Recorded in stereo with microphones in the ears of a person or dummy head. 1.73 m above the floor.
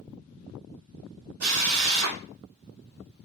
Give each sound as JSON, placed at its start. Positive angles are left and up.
{"t": 1.4, "sound": "a drill", "side_deg": -70, "distance_m": 1.7}